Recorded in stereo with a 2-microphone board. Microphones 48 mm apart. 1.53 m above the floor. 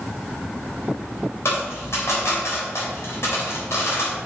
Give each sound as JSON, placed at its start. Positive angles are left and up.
{"t": 1.4, "sound": "a dropped coin", "side_deg": 70, "distance_m": 3.5}